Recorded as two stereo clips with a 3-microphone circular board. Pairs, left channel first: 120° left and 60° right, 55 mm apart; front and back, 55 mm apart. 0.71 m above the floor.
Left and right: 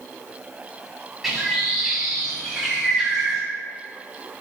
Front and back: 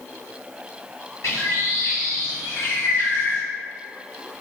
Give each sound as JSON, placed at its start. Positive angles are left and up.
{"t": 1.2, "sound": "a bird", "azimuth_deg": 30, "distance_m": 2.0}